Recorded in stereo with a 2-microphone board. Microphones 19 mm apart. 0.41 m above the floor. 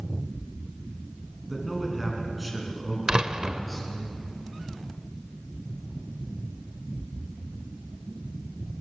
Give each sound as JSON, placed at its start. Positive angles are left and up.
{"t": 1.5, "sound": "a man speaking", "side_deg": -10, "distance_m": 5.0}
{"t": 3.1, "sound": "a door slam", "side_deg": -40, "distance_m": 0.8}